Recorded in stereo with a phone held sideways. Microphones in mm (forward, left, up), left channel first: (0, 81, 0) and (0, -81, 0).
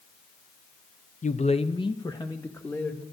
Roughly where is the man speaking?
Left.